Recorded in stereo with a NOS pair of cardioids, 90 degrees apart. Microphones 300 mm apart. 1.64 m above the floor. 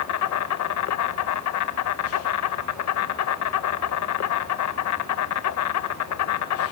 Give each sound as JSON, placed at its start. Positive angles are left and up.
{"t": 0.0, "sound": "an insect", "azimuth_deg": 65, "distance_m": 1.8}